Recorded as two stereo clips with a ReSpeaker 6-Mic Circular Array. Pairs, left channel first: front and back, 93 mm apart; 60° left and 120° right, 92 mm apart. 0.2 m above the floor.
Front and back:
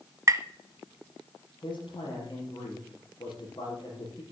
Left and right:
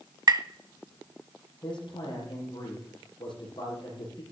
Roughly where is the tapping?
Behind right.